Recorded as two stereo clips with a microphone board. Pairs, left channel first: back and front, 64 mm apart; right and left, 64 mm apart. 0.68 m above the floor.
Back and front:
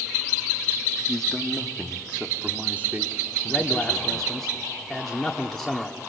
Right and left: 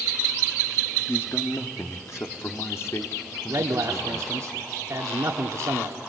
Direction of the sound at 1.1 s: 105° right.